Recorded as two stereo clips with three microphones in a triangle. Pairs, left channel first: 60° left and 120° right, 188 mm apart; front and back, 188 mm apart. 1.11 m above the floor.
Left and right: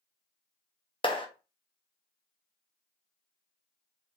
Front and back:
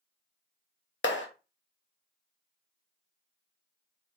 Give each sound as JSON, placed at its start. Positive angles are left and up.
{"t": 1.0, "sound": "a clap", "azimuth_deg": -5, "distance_m": 0.9}